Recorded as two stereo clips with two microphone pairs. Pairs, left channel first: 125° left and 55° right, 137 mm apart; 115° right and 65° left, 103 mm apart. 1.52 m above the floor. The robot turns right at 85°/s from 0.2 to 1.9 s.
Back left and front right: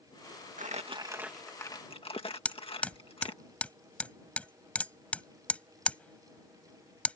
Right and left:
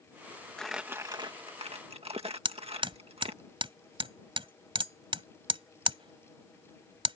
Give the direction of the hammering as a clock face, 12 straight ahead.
10 o'clock.